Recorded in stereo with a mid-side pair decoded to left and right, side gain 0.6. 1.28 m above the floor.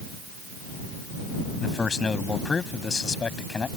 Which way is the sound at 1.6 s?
25° left.